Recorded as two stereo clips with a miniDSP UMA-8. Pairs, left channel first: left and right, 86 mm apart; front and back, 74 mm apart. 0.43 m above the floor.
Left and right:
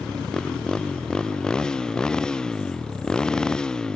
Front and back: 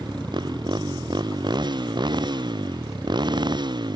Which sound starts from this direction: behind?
A motorcycle, at 0.0 s.